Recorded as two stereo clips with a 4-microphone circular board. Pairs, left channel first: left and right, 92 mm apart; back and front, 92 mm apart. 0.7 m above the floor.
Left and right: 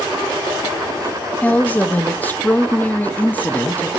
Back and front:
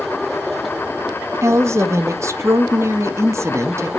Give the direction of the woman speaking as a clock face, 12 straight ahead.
11 o'clock.